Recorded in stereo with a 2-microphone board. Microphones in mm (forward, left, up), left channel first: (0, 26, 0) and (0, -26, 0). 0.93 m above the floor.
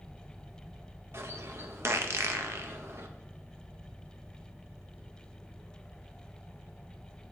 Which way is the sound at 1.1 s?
55° right (ahead or behind).